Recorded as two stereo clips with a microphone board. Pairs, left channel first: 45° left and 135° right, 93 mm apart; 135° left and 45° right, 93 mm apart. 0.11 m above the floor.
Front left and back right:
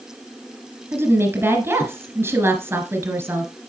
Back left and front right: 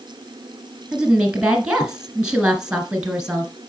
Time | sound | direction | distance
0.9 | a woman speaking | 115° right | 1.4 m